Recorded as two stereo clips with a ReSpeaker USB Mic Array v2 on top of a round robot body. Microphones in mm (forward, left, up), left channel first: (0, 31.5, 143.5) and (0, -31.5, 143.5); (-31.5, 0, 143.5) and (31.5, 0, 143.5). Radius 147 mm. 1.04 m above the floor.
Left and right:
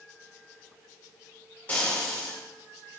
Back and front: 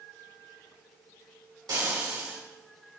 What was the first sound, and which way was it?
Frying, 20° left.